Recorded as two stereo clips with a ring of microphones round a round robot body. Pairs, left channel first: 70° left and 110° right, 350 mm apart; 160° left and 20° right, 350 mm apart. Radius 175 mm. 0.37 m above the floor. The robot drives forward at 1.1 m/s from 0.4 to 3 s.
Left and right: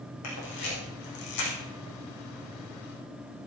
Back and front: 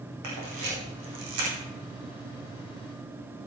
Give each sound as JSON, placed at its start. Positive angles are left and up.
{"t": 0.2, "sound": "a camera shutter", "azimuth_deg": 20, "distance_m": 6.0}